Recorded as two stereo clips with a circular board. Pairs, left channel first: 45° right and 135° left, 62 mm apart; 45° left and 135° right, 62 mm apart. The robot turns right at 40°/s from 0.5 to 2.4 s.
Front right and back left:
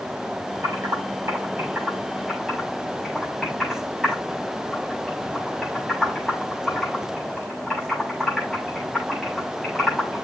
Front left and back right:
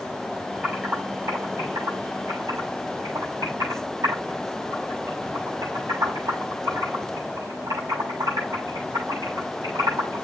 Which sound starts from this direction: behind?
Typing on a keyboard, at 0.6 s.